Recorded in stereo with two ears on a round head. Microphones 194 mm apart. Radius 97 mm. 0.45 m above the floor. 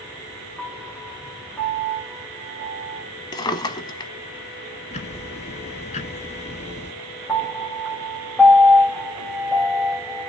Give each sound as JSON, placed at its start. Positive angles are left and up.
{"t": 0.6, "sound": "a piano", "side_deg": 5, "distance_m": 1.6}
{"t": 3.3, "sound": "a drawer", "side_deg": 20, "distance_m": 1.0}
{"t": 4.9, "sound": "ticking", "side_deg": 35, "distance_m": 1.4}
{"t": 7.3, "sound": "a piano", "side_deg": 5, "distance_m": 3.0}